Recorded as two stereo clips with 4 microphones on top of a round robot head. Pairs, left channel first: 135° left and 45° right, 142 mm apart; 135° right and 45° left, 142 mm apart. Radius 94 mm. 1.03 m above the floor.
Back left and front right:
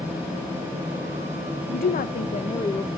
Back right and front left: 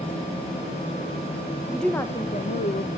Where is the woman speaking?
135° left, 0.9 m; by 2.9 s 150° right, 0.9 m.